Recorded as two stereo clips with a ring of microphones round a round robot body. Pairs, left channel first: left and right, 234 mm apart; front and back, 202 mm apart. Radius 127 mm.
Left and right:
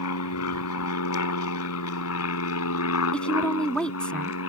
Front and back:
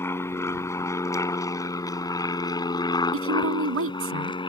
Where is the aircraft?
80° left; by 4.5 s 65° left.